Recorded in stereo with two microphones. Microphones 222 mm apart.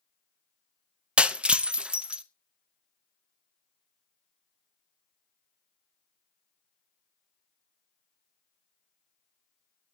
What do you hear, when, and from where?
1.2 s breaking glass: 5° right (ahead or behind), 0.8 m